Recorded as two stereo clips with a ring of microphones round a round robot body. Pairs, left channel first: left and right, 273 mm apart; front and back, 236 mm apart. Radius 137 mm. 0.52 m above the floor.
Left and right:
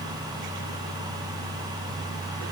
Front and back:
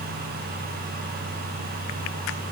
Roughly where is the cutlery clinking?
No cutlery clinking in this recording.